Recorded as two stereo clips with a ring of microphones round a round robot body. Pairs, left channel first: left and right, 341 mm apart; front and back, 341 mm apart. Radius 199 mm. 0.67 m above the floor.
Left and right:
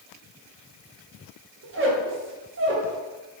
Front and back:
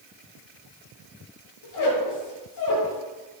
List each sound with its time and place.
1.6 s a squeak: 35° right, 0.8 m